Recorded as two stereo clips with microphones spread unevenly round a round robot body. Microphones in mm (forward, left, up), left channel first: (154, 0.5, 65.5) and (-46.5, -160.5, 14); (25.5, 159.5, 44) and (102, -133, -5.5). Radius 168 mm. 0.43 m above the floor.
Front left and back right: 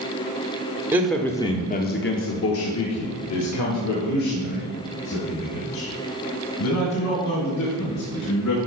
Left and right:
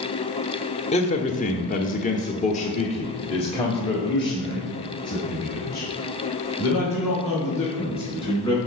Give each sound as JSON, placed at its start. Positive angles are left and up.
{"t": 0.9, "sound": "a man speaking", "azimuth_deg": 170, "distance_m": 0.9}